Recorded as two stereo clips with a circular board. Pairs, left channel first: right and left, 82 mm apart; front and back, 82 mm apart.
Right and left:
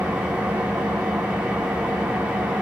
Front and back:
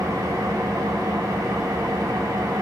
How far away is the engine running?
About 0.7 m.